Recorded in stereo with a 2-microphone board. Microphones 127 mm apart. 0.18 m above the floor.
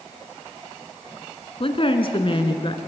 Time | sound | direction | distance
1.6 | a woman speaking | 45° left (ahead or behind) | 2.0 m